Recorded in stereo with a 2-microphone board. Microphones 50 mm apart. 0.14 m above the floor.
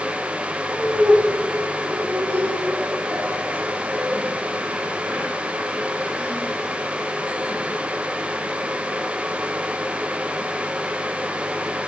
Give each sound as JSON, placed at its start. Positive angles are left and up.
{"t": 0.7, "sound": "laughter", "side_deg": -75, "distance_m": 5.5}